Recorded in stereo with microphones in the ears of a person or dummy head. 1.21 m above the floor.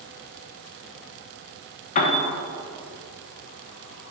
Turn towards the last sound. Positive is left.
turn(degrees=45)  # may be behind; listen again after turning